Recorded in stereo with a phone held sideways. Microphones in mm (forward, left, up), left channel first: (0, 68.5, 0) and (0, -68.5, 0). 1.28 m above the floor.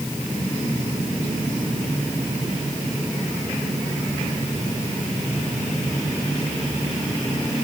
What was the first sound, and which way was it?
Only background noise.